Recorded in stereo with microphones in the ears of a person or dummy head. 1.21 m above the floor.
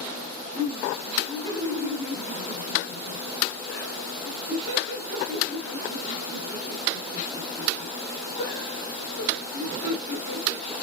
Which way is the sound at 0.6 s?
30° left (ahead or behind).